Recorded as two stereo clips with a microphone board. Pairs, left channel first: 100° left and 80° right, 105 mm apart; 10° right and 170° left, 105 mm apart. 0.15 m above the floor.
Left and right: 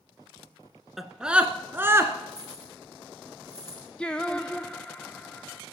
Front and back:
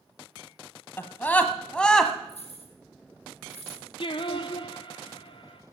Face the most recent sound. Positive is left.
turn(degrees=20)